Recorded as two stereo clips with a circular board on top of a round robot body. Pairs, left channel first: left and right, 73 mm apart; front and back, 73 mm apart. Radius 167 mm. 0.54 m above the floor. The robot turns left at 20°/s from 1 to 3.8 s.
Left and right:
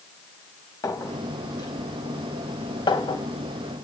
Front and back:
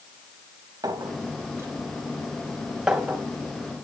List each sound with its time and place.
0.8 s a clink: 135° left, 2.5 m; by 3.9 s 80° left, 2.5 m